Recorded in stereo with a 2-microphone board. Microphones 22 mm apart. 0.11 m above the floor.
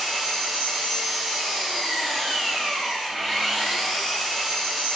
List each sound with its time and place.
0.0 s an engine running: 25° left (ahead or behind), 2 m